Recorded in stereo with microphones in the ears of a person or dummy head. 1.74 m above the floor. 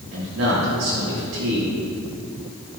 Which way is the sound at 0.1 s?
90° right.